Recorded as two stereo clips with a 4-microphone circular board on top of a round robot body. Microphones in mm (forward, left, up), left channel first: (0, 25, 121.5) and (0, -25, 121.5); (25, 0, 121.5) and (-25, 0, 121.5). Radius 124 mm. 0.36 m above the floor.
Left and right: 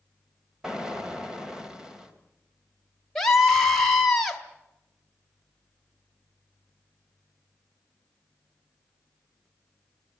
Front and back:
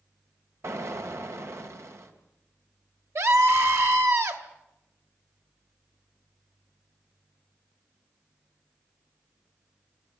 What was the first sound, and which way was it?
An explosion, 170° right.